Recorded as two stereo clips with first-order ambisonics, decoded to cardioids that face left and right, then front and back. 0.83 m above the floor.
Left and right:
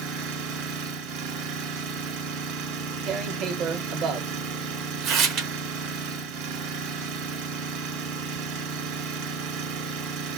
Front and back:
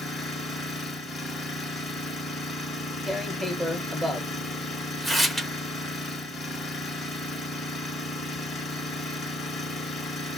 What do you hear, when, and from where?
0.0 s an engine running: 75° right, 1.3 m
3.1 s tearing paper: 95° right, 0.6 m